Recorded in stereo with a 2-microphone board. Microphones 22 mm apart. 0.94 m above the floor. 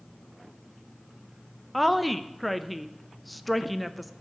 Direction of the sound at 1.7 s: 5° right (ahead or behind).